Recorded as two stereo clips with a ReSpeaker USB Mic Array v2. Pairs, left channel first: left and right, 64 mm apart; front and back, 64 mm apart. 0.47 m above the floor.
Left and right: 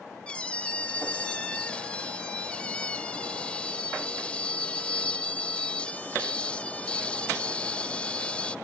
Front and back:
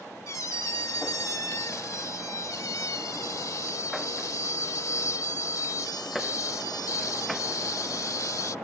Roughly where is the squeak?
Ahead.